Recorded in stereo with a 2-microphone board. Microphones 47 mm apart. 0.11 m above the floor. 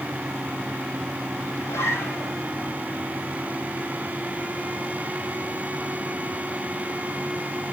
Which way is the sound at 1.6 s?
70° left (ahead or behind).